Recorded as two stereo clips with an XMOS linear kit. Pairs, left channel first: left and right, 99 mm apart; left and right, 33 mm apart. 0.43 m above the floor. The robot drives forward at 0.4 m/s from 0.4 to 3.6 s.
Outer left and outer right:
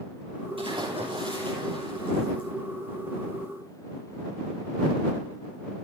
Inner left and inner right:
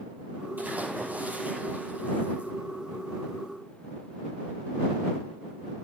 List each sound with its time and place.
0.6 s a splash: 60° right (ahead or behind), 8 m; by 2.5 s 55° right (ahead or behind), 8.5 m